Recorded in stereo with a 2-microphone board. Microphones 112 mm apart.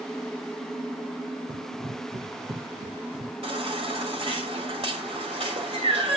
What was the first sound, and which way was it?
Running footsteps, 40° right (ahead or behind).